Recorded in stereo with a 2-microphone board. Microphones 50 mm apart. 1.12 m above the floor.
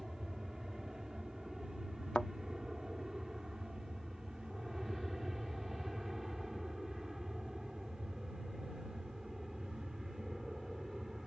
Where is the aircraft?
10° right (ahead or behind); by 11.3 s 5° right (ahead or behind).